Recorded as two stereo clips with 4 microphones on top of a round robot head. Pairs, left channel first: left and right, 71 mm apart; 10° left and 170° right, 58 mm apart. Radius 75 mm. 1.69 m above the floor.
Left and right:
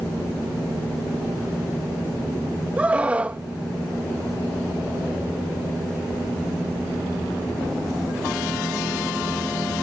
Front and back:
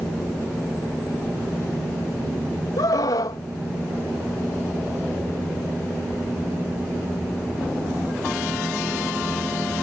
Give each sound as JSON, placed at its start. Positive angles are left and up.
{"t": 2.8, "sound": "a scream", "azimuth_deg": -20}